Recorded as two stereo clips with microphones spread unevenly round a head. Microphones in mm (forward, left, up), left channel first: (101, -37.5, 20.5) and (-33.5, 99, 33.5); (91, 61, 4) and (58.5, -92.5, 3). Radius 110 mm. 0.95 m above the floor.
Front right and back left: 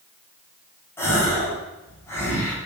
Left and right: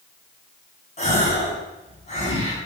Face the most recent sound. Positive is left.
turn(degrees=30)